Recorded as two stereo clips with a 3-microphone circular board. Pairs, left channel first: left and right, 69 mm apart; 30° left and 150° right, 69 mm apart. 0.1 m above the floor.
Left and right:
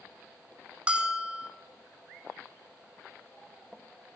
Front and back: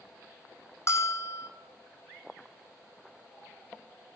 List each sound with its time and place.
0.9 s a bell: 15° right, 1.6 m